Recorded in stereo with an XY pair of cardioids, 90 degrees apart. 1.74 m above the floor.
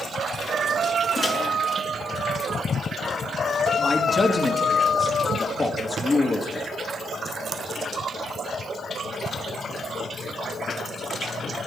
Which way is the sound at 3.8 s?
40° left.